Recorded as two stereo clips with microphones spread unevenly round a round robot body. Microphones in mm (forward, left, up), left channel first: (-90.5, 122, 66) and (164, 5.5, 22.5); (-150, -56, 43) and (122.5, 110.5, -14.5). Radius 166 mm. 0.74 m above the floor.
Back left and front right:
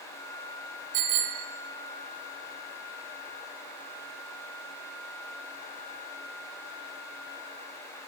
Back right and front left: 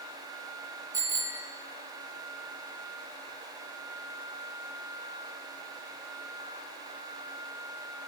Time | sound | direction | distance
0.9 | a bicycle bell | 50° right | 3 m